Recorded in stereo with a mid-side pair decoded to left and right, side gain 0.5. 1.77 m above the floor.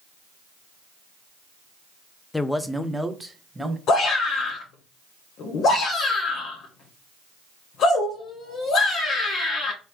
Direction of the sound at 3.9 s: 65° left.